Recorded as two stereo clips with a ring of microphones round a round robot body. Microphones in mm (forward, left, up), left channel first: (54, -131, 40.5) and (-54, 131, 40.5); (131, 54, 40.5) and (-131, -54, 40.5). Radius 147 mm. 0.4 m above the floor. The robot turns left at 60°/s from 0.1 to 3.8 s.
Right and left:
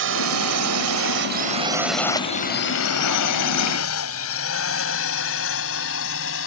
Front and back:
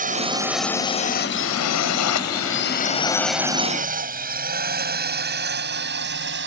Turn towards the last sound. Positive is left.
turn(degrees=-110)